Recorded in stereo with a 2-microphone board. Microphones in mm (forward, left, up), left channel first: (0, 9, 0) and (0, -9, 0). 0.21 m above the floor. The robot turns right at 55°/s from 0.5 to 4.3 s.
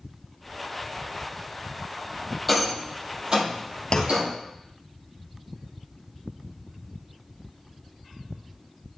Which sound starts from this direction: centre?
A rattle, at 2.5 s.